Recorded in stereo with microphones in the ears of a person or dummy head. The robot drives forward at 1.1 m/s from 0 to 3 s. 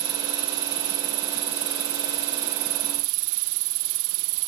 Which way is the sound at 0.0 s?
20° right (ahead or behind).